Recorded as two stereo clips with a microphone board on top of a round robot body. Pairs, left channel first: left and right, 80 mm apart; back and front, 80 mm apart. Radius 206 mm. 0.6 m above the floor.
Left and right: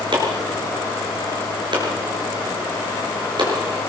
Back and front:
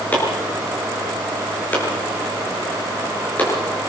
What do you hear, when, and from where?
0.1 s chopping: 110° right, 6.5 m